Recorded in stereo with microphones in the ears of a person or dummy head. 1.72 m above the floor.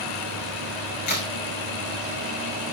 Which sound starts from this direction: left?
A crack, at 1.1 s.